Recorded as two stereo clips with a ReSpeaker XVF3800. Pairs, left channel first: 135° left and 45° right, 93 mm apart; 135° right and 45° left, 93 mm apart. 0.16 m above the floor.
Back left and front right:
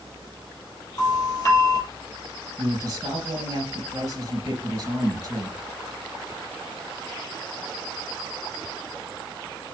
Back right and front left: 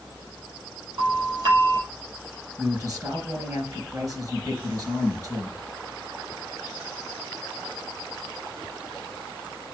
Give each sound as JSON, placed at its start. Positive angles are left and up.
{"t": 1.0, "sound": "a doorbell", "azimuth_deg": 85, "distance_m": 4.5}
{"t": 2.6, "sound": "a man speaking", "azimuth_deg": 0, "distance_m": 3.0}